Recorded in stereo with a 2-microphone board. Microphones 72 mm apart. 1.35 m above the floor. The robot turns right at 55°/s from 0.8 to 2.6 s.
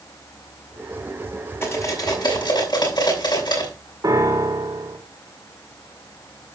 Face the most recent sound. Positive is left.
turn(degrees=-55)  # may be behind; listen again after turning